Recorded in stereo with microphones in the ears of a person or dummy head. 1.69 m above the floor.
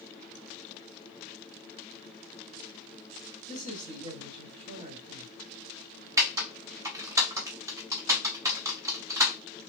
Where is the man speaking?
35° right (ahead or behind), 1.9 m.